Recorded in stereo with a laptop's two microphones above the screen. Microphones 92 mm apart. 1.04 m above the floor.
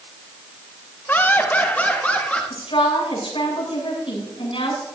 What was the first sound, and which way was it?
Laughter, 20° left (ahead or behind).